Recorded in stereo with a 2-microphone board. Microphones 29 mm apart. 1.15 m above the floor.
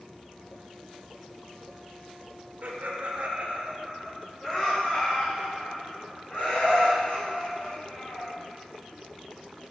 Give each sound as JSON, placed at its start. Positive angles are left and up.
{"t": 2.6, "sound": "laughter", "side_deg": -75, "distance_m": 2.0}